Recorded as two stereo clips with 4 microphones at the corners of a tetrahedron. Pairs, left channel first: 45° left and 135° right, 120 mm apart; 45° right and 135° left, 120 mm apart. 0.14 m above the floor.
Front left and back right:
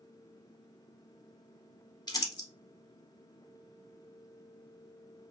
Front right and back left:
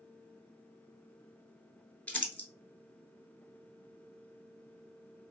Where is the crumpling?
25° left, 0.7 m.